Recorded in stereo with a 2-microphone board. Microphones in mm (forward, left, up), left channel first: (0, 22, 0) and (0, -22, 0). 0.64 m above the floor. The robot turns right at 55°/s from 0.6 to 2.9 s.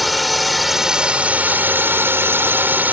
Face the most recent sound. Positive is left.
turn(degrees=-55)